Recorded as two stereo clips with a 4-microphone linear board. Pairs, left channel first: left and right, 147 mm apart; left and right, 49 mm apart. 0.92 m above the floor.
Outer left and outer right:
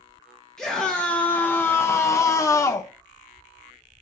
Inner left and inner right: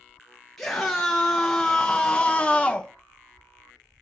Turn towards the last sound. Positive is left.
turn(degrees=20)  # may be behind; listen again after turning